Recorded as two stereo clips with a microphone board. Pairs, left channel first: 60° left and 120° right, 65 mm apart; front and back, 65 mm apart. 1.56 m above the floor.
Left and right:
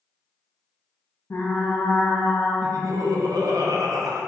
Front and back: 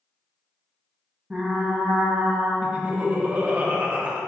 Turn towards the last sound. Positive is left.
turn(degrees=-110)